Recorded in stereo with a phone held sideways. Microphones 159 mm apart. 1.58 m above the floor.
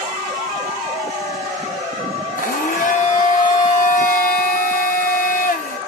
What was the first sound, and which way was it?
A blender, 60° left (ahead or behind).